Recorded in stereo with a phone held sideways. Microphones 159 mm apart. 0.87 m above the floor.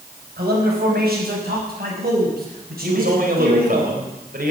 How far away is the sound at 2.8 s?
About 4 m.